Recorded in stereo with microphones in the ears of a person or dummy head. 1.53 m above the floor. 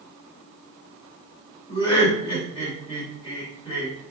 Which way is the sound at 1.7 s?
35° left (ahead or behind).